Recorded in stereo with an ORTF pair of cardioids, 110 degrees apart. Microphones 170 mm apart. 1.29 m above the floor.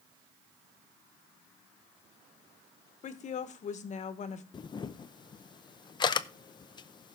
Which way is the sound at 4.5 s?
25° left.